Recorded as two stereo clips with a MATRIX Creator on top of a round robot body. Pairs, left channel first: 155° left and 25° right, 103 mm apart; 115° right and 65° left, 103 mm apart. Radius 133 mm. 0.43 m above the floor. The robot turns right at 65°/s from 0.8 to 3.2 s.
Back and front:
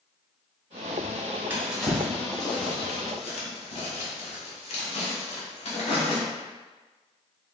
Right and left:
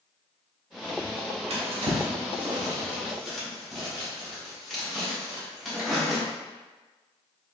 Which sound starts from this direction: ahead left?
A drawer, at 1.5 s.